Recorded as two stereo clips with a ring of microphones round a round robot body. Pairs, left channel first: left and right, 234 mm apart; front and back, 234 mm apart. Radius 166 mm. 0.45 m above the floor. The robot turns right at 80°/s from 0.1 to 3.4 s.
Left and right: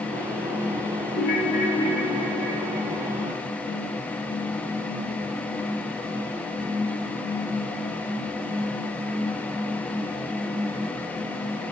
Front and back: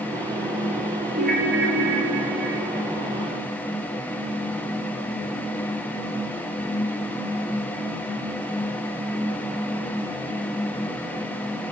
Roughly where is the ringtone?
Behind left.